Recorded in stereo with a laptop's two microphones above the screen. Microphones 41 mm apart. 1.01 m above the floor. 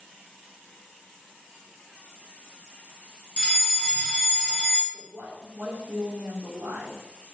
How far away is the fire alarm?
About 1.7 m.